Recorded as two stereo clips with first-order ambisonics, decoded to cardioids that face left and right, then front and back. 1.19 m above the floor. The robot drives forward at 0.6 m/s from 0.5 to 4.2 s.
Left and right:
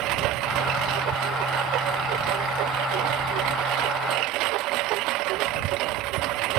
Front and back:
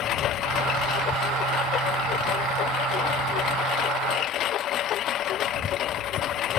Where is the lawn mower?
50° right; by 6.6 s 55° right.